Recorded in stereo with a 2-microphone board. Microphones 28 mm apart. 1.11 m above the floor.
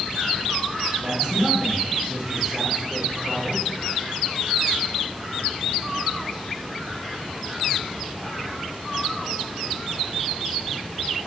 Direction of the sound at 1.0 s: 40° right (ahead or behind).